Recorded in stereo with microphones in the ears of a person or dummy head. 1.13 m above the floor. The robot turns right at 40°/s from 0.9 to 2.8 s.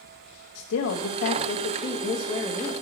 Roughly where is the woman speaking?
Left.